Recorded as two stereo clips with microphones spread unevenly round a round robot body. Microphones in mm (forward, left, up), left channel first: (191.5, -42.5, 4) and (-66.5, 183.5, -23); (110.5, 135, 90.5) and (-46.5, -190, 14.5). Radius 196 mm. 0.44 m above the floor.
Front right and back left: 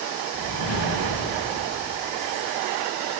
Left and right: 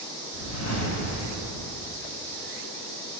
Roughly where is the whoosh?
Ahead.